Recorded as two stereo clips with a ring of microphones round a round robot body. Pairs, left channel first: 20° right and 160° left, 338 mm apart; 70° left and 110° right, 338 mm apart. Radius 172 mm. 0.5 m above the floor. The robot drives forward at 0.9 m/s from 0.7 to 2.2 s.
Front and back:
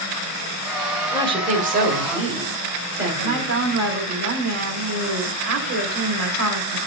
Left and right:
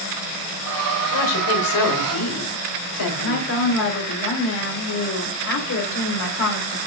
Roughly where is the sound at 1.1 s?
Left.